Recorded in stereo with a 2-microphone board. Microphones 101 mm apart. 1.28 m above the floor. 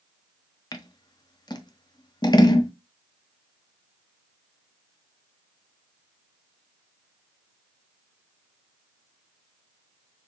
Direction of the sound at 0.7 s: 40° left (ahead or behind).